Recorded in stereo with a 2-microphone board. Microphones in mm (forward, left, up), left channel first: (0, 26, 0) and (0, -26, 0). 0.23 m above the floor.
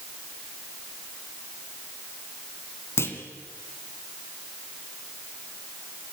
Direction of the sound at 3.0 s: 55° left (ahead or behind).